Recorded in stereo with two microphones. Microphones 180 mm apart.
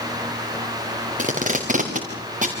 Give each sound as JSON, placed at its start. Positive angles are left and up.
{"t": 1.2, "sound": "tape being pulled", "side_deg": -45, "distance_m": 4.5}